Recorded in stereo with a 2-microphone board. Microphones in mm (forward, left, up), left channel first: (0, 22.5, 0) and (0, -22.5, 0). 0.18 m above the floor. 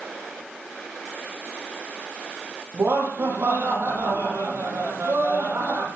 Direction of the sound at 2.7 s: 75° right (ahead or behind).